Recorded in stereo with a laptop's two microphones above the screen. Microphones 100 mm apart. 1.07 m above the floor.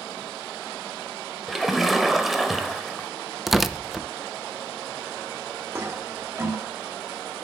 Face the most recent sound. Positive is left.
turn(degrees=-25)  # may be behind; listen again after turning